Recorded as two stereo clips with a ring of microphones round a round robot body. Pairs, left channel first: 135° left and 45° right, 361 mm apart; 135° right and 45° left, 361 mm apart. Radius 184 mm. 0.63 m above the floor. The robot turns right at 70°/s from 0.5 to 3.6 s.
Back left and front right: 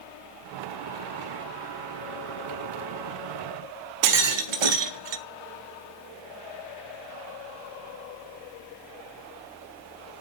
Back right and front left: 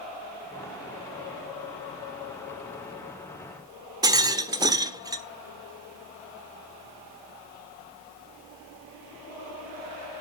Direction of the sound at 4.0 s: 35° right.